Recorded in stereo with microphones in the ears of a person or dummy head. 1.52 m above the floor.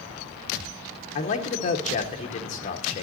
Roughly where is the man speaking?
Left.